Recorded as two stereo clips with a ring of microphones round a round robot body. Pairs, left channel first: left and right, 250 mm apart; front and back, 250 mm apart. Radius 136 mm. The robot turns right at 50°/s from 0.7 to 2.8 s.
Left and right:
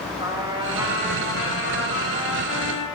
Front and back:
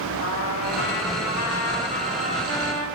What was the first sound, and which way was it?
A trumpet, 20° right.